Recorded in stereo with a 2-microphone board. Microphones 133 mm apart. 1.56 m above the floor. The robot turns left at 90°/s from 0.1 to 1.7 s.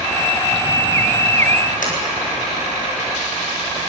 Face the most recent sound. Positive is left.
turn(degrees=85)